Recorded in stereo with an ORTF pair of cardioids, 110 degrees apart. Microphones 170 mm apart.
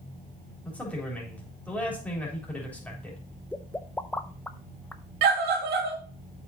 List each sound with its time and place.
0.7 s a man speaking: 10° left, 3.5 m
3.5 s a pop: 10° left, 0.6 m
5.2 s a scream: 65° right, 2.5 m